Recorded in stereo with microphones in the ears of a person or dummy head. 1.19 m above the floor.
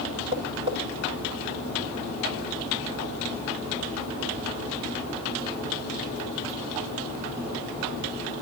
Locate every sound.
0.3 s tapping: 25° right (ahead or behind), 3.5 m